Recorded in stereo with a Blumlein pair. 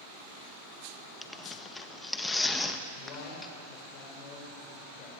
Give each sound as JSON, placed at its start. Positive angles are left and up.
{"t": 1.2, "sound": "tearing paper", "azimuth_deg": 10, "distance_m": 1.4}
{"t": 2.9, "sound": "a man speaking", "azimuth_deg": 35, "distance_m": 6.0}